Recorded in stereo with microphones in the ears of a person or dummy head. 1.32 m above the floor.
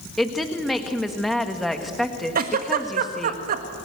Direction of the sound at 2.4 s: 50° right (ahead or behind).